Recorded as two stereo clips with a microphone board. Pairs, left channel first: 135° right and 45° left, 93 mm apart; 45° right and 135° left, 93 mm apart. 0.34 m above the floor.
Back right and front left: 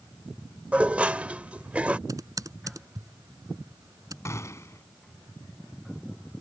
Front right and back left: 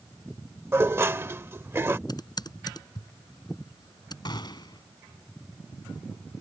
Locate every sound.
0.7 s dishes clattering: 105° left
2.1 s typing on a keyboard: 5° right
4.2 s a gunshot: 80° right